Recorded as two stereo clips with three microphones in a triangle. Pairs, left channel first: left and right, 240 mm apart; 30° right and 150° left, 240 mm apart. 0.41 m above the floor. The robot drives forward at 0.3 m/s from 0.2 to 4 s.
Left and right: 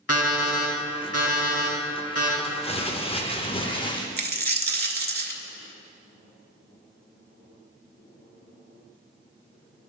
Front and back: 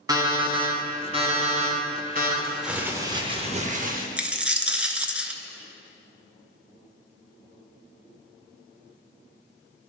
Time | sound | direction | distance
0.1 | an alarm clock | 75° left | 1.6 m
2.4 | crumpling | 55° left | 0.5 m
4.2 | a dropped coin | 125° right | 0.5 m